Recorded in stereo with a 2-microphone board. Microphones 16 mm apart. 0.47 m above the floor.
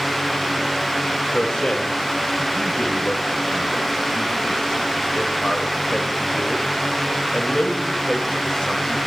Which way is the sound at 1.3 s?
60° left (ahead or behind).